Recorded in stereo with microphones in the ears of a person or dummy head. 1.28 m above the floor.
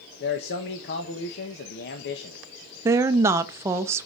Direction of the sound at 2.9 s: 20° right (ahead or behind).